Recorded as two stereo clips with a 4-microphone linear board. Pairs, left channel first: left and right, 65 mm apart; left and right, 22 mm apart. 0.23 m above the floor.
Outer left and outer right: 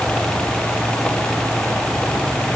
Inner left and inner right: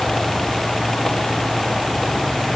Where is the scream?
I don't hear a scream.